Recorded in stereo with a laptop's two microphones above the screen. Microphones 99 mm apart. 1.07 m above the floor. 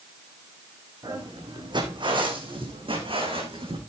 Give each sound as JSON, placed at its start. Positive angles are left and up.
{"t": 1.0, "sound": "footsteps", "side_deg": -45, "distance_m": 4.0}